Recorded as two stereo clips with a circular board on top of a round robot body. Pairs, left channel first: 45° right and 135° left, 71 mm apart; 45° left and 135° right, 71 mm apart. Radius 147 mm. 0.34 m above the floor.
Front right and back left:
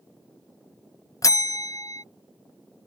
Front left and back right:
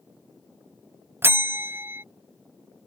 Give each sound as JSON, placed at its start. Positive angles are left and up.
{"t": 1.2, "sound": "a bell", "azimuth_deg": -80}